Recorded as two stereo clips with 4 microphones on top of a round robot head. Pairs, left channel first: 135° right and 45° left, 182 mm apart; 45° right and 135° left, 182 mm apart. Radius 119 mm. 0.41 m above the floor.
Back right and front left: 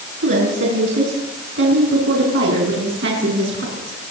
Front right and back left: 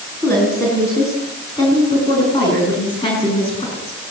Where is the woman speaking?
35° left, 6 m; by 4.0 s 15° left, 7 m.